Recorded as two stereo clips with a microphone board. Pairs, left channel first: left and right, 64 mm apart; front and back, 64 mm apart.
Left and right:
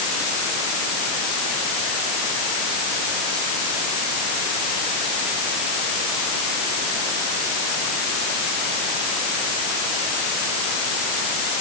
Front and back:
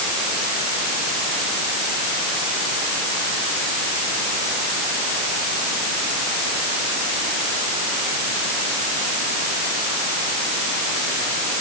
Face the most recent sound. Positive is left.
No sound to turn to.